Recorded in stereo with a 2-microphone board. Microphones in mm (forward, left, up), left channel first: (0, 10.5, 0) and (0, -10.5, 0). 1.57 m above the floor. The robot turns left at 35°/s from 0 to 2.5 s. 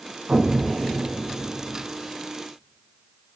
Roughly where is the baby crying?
I don't hear a baby crying.